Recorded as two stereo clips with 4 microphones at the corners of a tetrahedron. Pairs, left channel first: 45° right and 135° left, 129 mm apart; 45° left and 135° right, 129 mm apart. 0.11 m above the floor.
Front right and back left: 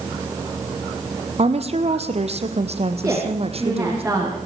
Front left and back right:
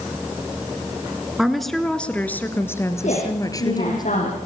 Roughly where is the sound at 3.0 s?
Ahead left.